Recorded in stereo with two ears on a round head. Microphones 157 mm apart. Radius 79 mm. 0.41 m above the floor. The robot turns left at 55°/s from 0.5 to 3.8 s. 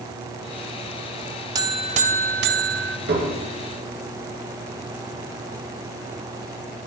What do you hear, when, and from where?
1.6 s a buzzer: 25° right, 1.3 m; by 3.0 s 100° right, 1.3 m
3.1 s dishes clattering: 65° right (ahead or behind), 4 m; by 3.4 s 45° right (ahead or behind), 4 m